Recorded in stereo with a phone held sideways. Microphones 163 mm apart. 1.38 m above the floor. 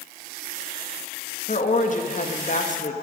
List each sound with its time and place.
1.5 s a woman speaking: 50° left (ahead or behind), 1.6 m